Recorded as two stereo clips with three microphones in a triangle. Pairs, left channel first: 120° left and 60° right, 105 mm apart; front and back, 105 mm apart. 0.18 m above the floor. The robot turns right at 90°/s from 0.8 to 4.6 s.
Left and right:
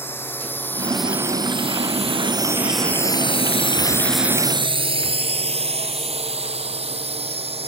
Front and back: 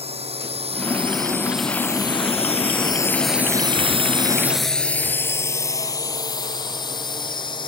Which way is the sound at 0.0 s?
170° right.